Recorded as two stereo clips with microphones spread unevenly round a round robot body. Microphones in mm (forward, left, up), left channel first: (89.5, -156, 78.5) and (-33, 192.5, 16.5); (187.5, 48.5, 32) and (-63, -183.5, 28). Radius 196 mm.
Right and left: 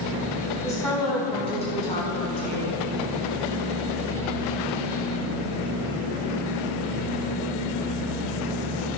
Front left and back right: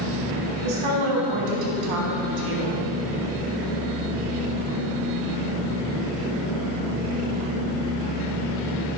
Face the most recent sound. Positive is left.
turn(degrees=-135)